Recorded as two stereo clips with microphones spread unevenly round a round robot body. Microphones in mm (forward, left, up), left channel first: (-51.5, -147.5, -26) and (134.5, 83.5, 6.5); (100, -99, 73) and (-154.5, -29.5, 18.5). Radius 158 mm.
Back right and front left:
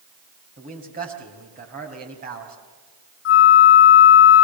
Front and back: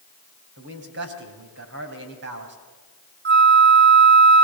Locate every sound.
0.6 s a man speaking: 120° left, 3.5 m
3.2 s a flute: 165° right, 1.1 m